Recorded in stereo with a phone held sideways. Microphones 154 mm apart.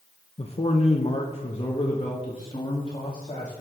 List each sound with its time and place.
0.4 s a man speaking: 40° left (ahead or behind), 0.8 m; by 3.6 s 35° left (ahead or behind), 2.5 m